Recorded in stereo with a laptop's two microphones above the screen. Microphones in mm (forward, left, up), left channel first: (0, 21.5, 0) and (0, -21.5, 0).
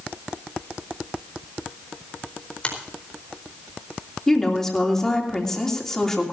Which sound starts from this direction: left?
A finger snap, at 2.6 s.